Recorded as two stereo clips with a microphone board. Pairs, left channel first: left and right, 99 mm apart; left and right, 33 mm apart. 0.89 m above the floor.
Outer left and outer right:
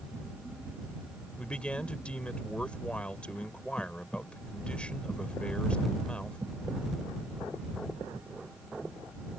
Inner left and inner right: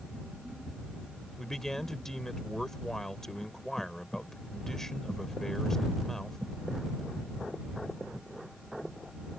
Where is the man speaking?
10° left (ahead or behind).